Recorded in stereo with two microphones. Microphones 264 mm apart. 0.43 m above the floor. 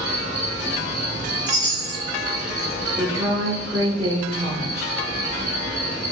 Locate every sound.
0.0 s an insect: 40° left (ahead or behind), 1.0 m
1.5 s a chime: 15° right (ahead or behind), 1.4 m
3.0 s a woman speaking: 15° right (ahead or behind), 0.8 m